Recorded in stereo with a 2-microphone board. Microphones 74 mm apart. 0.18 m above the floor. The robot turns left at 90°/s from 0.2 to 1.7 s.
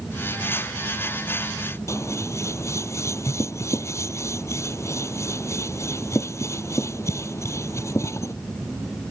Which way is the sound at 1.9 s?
35° left (ahead or behind).